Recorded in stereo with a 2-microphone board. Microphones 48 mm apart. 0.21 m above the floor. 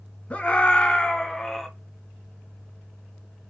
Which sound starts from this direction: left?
A scream, at 0.3 s.